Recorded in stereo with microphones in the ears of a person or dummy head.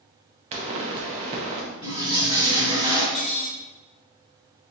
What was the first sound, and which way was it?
A pop, 35° right (ahead or behind).